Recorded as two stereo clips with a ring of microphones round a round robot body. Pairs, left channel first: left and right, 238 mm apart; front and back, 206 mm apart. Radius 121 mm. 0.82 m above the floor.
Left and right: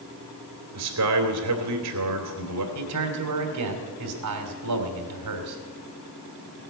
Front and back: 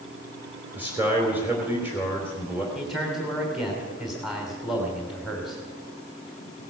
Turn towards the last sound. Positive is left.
turn(degrees=-90)